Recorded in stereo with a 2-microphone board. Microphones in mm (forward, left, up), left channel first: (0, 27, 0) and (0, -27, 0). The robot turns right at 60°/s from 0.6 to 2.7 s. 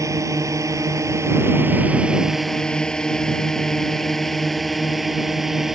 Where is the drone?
80° right; by 5.7 s 5° right (ahead or behind).